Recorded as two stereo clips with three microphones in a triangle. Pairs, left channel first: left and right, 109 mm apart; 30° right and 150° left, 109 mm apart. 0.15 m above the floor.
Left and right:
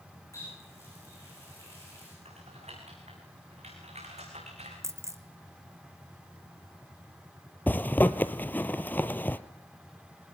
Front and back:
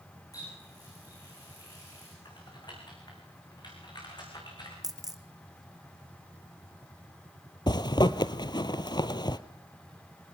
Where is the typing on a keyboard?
80° right, 7.5 m.